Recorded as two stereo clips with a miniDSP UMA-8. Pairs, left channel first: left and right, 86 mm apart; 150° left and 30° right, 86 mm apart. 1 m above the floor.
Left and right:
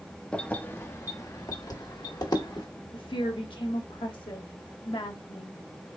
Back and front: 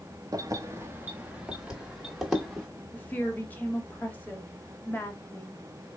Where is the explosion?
No explosion in this recording.